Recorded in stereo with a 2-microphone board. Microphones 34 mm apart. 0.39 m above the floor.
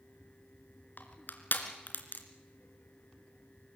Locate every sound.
1.0 s crushing: 65° left (ahead or behind), 2.5 m